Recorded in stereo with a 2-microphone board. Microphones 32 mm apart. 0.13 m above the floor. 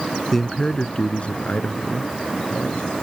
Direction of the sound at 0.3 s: 5° left (ahead or behind).